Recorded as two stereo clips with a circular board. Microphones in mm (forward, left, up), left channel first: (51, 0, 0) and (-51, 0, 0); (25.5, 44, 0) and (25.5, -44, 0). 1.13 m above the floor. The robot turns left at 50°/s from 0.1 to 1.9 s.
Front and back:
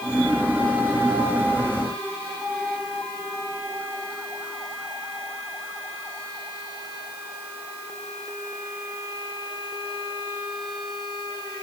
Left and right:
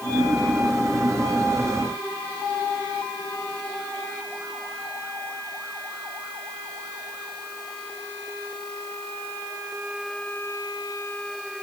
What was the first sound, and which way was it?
Only background noise.